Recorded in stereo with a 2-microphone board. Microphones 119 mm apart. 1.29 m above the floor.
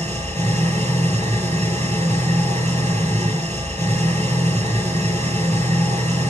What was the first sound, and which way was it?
An engine running, 70° right (ahead or behind).